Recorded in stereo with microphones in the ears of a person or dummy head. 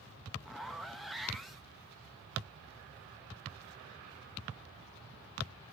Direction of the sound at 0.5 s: Centre (ahead or behind).